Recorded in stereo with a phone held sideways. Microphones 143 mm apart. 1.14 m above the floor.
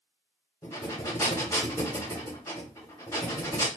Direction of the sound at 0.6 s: 20° left (ahead or behind).